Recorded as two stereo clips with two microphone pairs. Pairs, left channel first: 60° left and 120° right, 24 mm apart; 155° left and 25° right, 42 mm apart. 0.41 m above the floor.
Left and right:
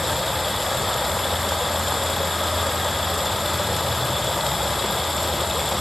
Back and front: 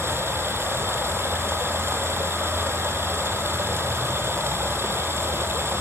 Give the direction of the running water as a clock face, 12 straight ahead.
1 o'clock.